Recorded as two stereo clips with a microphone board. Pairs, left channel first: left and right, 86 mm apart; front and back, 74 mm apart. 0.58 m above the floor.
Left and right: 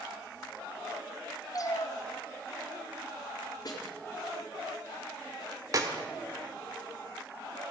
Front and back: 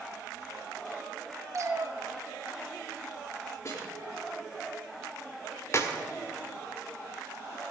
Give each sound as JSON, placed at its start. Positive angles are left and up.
{"t": 1.5, "sound": "a cat meowing", "azimuth_deg": 135, "distance_m": 1.0}
{"t": 3.6, "sound": "a snare drum", "azimuth_deg": 45, "distance_m": 4.5}
{"t": 5.7, "sound": "a clap", "azimuth_deg": -50, "distance_m": 1.4}